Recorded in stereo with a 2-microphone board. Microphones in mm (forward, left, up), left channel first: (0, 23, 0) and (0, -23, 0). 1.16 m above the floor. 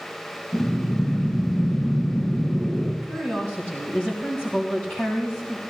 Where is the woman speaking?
40° left (ahead or behind), 3 m.